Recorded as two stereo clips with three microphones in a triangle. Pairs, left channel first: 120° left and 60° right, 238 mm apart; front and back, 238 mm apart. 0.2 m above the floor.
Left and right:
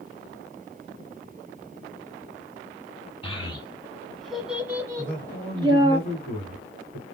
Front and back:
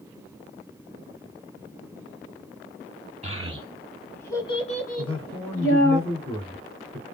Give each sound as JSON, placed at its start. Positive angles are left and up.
{"t": 3.2, "sound": "a child speaking", "azimuth_deg": 160, "distance_m": 0.8}
{"t": 5.0, "sound": "a man speaking", "azimuth_deg": -45, "distance_m": 1.8}